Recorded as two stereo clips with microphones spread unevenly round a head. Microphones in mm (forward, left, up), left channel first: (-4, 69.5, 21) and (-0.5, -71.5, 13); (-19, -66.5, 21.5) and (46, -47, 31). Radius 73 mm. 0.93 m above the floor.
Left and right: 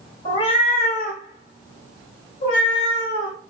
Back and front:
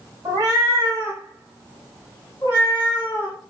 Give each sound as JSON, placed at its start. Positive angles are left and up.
{"t": 0.2, "sound": "a cat meowing", "azimuth_deg": 40, "distance_m": 0.8}